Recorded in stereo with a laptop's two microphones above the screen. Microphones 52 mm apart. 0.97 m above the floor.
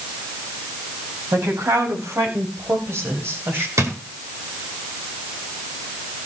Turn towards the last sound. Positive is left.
turn(degrees=-70)  # may be behind; listen again after turning